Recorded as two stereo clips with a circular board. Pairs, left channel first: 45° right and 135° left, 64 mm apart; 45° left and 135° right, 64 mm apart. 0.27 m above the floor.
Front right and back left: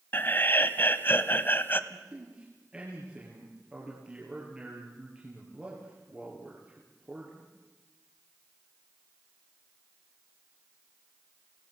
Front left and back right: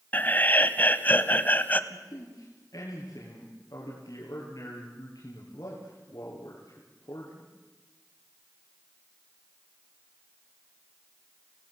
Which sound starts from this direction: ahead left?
A man speaking, at 1.9 s.